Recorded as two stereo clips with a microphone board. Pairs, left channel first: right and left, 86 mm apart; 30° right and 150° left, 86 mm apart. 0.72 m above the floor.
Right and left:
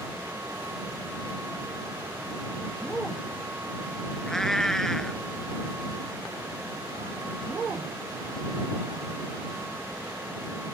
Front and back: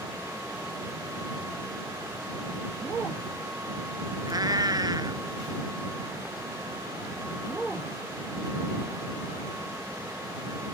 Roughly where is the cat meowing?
Behind.